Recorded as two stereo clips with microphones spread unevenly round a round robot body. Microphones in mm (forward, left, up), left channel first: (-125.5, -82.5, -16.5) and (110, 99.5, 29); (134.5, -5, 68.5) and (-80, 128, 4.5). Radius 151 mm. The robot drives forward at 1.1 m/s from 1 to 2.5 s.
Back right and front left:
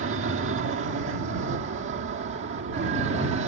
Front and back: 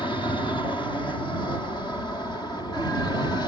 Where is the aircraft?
50° left.